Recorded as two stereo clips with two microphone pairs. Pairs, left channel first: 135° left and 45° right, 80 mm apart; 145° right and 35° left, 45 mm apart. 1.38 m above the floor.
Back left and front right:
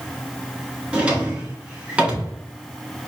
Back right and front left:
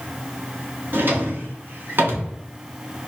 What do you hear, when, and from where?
0.9 s a drawer: 25° left, 0.9 m